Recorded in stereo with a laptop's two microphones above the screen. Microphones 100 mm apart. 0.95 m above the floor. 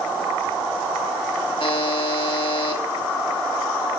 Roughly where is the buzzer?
Left.